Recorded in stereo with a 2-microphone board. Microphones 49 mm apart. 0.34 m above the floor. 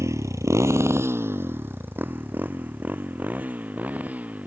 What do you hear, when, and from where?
0.0 s a motorcycle: 75° right (ahead or behind); by 4.5 s 30° right (ahead or behind)